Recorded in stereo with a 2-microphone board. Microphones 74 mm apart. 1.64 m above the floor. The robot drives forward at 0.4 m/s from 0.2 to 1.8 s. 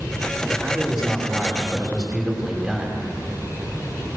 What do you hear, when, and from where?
0.5 s a man speaking: 5° right (ahead or behind), 5 m